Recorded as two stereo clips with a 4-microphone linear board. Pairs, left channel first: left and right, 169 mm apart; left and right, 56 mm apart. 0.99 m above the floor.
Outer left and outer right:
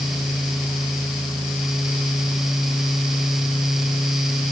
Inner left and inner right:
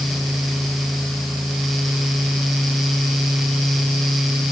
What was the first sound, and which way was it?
Only background noise.